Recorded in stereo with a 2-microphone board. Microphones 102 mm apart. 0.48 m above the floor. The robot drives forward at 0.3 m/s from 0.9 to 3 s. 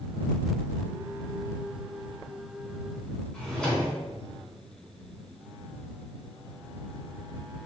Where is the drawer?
5° left (ahead or behind), 1.7 m.